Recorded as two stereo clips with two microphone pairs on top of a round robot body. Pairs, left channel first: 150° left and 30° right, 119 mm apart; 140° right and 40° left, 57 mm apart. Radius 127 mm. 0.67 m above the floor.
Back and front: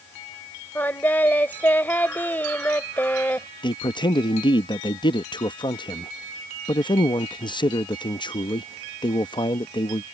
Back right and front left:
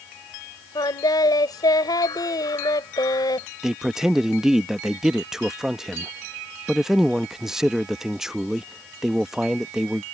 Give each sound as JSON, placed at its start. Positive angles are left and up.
{"t": 0.8, "sound": "singing", "azimuth_deg": -135}
{"t": 3.6, "sound": "a man speaking", "azimuth_deg": 105}